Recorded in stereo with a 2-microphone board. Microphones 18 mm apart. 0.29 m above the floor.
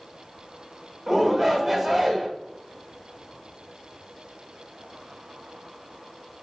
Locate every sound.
1.1 s a shout: 15° right (ahead or behind), 1.0 m